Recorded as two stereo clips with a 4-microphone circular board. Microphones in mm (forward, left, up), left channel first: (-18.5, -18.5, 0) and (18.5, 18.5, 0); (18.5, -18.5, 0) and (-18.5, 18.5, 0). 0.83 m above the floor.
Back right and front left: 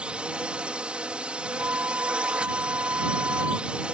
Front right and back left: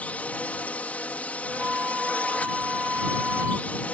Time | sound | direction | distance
0.0 | a drone | 10° right | ?
1.5 | a flute | 75° left | ?